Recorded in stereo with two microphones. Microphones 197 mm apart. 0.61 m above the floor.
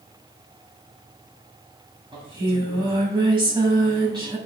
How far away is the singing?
About 2.5 m.